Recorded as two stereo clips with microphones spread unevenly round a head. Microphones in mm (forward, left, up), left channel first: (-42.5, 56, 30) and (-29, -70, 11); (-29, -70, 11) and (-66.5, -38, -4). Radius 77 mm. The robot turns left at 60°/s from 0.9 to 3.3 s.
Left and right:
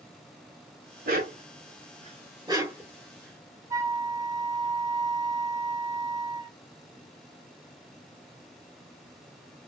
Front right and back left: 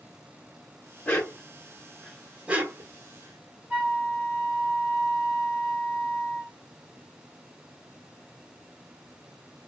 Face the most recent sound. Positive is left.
turn(degrees=-150)